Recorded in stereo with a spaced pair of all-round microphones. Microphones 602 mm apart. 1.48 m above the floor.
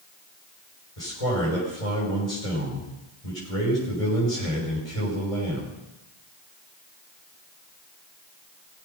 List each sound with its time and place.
1.0 s a man speaking: 70° left (ahead or behind), 6 m